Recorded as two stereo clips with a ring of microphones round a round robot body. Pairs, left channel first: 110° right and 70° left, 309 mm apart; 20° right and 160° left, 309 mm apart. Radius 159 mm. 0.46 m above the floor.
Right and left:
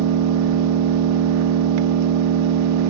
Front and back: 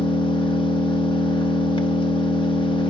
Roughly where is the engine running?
Ahead left.